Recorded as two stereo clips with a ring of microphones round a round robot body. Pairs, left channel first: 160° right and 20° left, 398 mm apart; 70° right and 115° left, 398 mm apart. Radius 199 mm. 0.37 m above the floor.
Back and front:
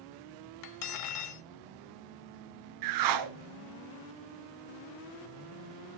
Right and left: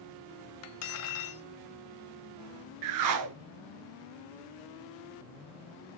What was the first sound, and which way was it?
Cutlery clinking, 120° right.